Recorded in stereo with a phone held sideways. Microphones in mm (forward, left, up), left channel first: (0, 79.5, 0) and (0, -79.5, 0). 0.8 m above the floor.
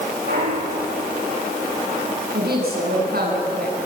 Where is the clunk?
85° right, 8.5 m.